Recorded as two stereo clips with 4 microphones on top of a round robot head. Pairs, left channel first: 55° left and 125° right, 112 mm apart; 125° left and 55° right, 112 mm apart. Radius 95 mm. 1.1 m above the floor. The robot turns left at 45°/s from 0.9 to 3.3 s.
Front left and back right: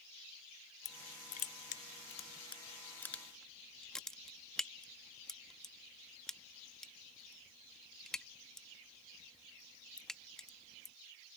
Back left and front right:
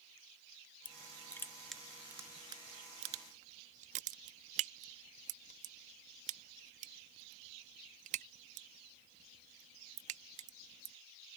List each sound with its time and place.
0.8 s crushing: 75° left; by 10.9 s 30° right